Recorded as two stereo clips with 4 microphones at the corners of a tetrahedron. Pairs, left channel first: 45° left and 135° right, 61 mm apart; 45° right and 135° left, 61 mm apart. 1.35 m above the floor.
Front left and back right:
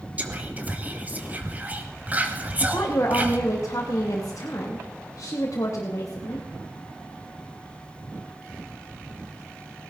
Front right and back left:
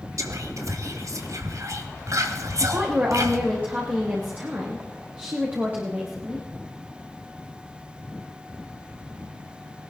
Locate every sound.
0.2 s whispering: 160° left, 2 m
2.6 s a woman speaking: 75° left, 2.5 m